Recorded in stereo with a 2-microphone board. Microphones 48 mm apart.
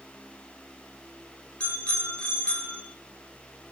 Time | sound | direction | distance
1.6 | a bicycle bell | 20° left (ahead or behind) | 5.5 m